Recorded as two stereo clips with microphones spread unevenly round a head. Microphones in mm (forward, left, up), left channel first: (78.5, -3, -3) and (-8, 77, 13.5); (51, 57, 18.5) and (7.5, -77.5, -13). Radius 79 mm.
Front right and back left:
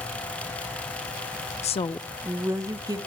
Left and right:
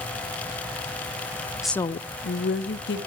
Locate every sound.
1.6 s a woman speaking: 30° right, 0.6 m; by 3.0 s 80° left, 1.9 m